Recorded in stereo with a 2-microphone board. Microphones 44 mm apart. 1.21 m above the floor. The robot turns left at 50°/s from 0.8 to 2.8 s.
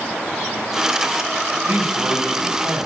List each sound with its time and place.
1.6 s a man speaking: 50° right, 6.5 m; by 2.9 s 110° right, 6.5 m